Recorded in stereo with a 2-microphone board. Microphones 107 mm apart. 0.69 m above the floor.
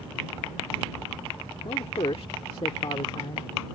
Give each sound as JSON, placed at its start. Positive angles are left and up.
{"t": 1.6, "sound": "a man speaking", "side_deg": 65}